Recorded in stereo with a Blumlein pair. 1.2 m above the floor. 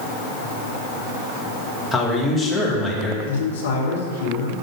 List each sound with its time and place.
1.9 s a man speaking: 5° left, 2.0 m
3.2 s a man speaking: 60° left, 1.8 m